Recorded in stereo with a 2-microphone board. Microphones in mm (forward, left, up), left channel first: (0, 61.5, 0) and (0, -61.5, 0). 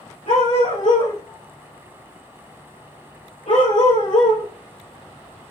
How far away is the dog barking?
About 3 m.